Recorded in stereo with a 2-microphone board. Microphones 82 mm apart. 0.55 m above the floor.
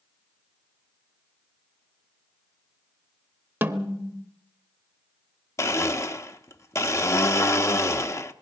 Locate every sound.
3.6 s a snare drum: 25° right (ahead or behind), 1.0 m
5.6 s a blender: 35° left (ahead or behind), 0.8 m